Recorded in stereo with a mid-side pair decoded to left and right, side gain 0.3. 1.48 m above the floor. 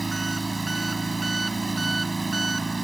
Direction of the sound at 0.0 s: 30° right.